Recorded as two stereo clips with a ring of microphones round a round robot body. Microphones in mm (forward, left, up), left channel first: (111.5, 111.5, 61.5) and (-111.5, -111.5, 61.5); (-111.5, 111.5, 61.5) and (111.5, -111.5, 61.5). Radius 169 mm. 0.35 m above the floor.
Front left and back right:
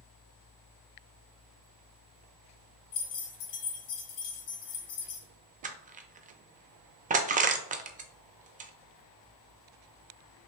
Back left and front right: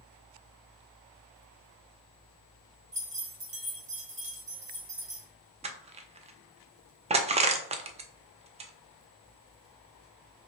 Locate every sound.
2.9 s keys jangling: 20° left, 1.6 m
5.6 s crushing: 95° right, 0.5 m